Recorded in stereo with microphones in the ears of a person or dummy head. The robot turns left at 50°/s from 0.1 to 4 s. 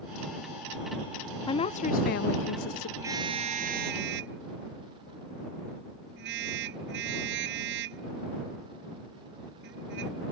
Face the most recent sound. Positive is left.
turn(degrees=-60)  # may be behind; listen again after turning